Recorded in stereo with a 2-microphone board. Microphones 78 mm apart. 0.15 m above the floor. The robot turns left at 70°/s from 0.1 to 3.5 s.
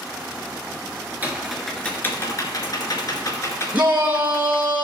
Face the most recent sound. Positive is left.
turn(degrees=-20)  # may be behind; listen again after turning